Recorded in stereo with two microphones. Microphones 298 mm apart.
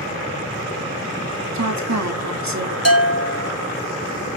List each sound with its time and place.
1.5 s a woman speaking: 65° right (ahead or behind), 1.9 m
2.9 s a bell: 55° left (ahead or behind), 2 m